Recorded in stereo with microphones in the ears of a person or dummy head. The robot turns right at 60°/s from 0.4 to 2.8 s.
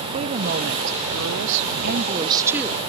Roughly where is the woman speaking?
Behind right.